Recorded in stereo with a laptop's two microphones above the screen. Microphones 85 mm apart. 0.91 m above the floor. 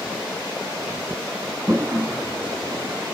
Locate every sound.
1.7 s a toilet flushing: 25° right (ahead or behind), 1.6 m